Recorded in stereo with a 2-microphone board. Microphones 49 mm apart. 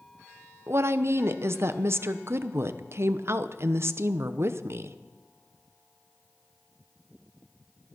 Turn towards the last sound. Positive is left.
turn(degrees=-55)  # may be behind; listen again after turning